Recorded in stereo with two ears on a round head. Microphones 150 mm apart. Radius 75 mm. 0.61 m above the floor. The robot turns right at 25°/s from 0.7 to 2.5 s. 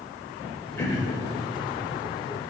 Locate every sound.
0.8 s throat clearing: 15° left (ahead or behind), 0.7 m; by 1.2 s 25° left (ahead or behind), 0.7 m